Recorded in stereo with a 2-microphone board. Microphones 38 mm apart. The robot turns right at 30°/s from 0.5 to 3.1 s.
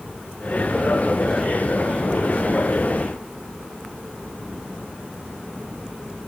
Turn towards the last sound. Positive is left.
No sound to turn to.